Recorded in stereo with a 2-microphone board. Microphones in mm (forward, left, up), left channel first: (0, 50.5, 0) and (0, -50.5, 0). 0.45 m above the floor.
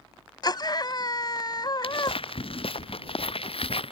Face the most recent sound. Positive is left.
turn(degrees=70)  # may be behind; listen again after turning